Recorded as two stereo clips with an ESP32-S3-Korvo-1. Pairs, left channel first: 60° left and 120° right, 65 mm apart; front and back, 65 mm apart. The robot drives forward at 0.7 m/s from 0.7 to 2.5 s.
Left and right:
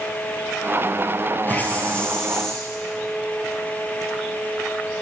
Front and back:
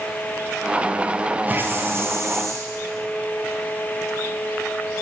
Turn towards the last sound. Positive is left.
turn(degrees=145)